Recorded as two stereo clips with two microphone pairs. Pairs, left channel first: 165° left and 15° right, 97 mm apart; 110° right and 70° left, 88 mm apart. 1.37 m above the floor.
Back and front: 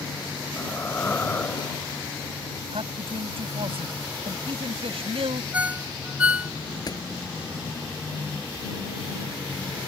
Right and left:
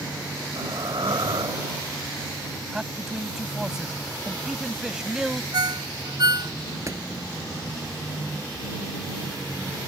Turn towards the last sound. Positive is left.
turn(degrees=120)